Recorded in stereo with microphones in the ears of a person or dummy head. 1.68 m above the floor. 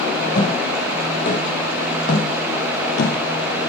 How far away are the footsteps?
About 4.5 m.